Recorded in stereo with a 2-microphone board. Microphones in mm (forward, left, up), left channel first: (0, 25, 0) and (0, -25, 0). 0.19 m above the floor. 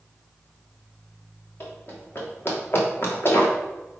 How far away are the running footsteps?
About 4 m.